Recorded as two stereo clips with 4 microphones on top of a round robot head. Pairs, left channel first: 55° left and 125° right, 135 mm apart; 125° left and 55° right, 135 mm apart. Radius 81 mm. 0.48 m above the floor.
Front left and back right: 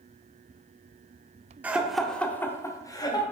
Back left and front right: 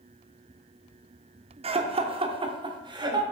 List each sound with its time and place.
1.6 s laughter: 50° right, 0.9 m; by 3.2 s straight ahead, 1.5 m